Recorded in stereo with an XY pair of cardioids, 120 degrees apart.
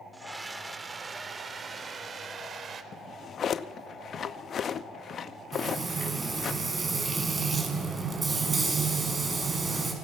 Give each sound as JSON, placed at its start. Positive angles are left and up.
{"t": 0.1, "sound": "a scream", "azimuth_deg": -10, "distance_m": 3.0}
{"t": 2.9, "sound": "a drawer", "azimuth_deg": 45, "distance_m": 0.8}
{"t": 5.5, "sound": "frying", "azimuth_deg": -25, "distance_m": 5.5}